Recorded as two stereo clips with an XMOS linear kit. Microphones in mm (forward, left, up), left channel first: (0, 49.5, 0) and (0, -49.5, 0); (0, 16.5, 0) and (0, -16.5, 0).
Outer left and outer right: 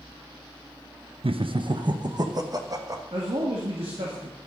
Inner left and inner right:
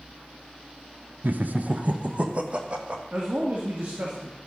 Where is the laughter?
65° right (ahead or behind), 0.6 m; by 3.0 s 35° right (ahead or behind), 1.6 m.